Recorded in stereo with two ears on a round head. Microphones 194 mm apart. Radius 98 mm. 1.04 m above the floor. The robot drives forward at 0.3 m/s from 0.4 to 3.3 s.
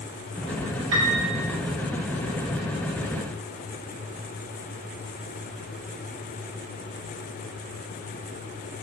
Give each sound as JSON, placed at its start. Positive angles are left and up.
{"t": 0.9, "sound": "a piano", "side_deg": -65, "distance_m": 1.3}